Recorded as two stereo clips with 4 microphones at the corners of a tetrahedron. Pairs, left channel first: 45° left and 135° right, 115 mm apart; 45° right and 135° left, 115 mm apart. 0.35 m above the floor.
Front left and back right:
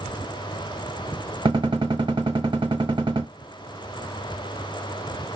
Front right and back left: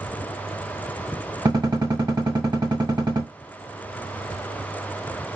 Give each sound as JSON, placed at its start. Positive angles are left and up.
{"t": 1.4, "sound": "a gunshot", "azimuth_deg": -175, "distance_m": 0.8}